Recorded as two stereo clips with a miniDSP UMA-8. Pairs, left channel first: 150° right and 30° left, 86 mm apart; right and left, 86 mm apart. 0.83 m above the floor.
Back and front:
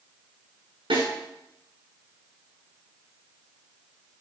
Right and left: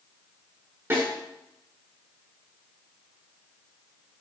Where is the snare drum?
30° left, 5.5 m.